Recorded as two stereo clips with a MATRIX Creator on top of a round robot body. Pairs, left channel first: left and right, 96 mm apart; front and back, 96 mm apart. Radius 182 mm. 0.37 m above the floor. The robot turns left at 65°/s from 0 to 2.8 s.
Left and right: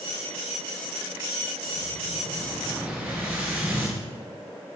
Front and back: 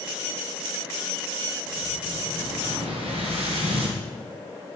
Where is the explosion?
90° right, 1.7 m; by 4.0 s 160° right, 1.7 m.